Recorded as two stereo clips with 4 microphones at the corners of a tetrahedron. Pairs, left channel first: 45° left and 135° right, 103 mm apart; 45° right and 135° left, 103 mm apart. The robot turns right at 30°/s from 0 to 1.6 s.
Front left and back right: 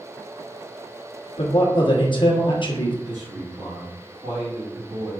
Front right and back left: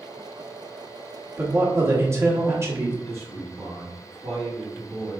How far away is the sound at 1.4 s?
About 1.1 m.